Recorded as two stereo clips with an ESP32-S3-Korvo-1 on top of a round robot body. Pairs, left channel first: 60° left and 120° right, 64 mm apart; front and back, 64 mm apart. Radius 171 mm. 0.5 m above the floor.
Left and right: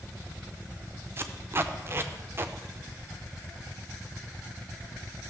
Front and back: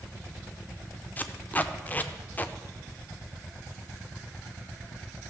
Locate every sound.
1.2 s tape being pulled: 65° right, 0.6 m